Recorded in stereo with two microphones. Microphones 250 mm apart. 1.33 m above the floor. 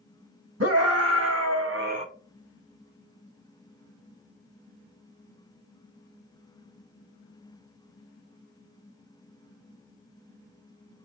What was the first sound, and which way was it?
A scream, 70° right (ahead or behind).